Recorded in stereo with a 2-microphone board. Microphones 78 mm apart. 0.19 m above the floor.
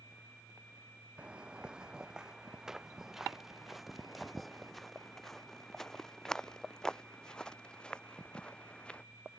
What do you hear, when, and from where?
1.2 s footsteps: 10° right (ahead or behind); by 9.0 s 15° left (ahead or behind)